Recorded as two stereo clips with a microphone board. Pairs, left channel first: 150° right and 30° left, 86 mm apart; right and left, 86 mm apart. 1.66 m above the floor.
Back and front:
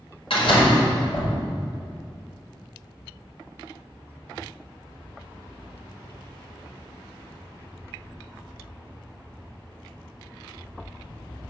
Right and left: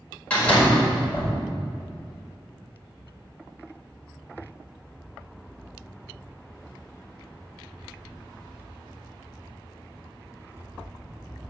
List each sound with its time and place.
0.3 s a door slam: 160° right, 4.5 m